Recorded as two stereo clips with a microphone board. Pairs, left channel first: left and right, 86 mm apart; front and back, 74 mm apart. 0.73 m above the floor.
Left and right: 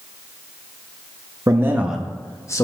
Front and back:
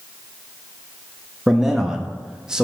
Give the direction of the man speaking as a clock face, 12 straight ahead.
3 o'clock.